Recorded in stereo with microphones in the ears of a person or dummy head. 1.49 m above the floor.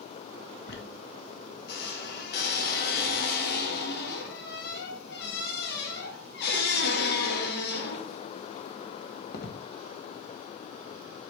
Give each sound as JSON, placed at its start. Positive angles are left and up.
{"t": 0.7, "sound": "a squeak", "side_deg": 65, "distance_m": 1.6}